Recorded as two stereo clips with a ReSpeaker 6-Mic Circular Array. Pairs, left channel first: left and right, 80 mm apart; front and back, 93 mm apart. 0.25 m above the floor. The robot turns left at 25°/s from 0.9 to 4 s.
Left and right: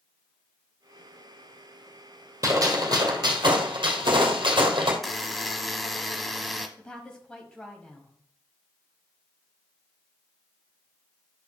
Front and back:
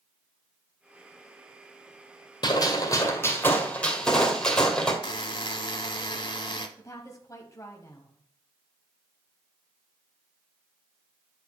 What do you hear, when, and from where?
2.4 s a gunshot: 40° right, 2.0 m; by 4.9 s 80° right, 2.0 m
5.0 s a buzzer: straight ahead, 0.8 m
6.8 s a woman speaking: 20° left, 1.2 m